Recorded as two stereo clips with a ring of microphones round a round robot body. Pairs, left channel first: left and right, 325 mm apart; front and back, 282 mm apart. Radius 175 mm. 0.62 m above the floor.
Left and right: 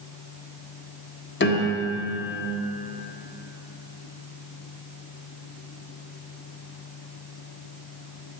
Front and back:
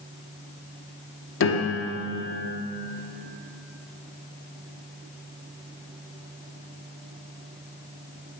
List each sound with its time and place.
1.4 s a piano: 35° left, 1.4 m